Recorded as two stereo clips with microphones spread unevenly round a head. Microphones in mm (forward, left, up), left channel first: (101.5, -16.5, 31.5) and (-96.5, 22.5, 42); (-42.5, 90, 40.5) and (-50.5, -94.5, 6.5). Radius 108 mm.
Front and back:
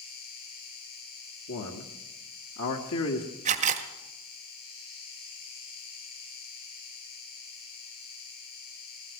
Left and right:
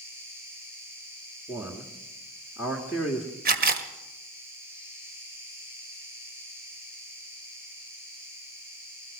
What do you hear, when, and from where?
0.0 s an insect: 15° right, 8 m
1.5 s a man speaking: 5° right, 1.7 m
3.5 s a camera shutter: 135° right, 1.6 m